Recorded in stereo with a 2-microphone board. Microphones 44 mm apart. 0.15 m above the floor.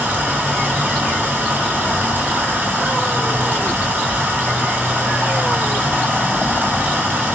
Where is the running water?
45° right (ahead or behind), 1.7 m.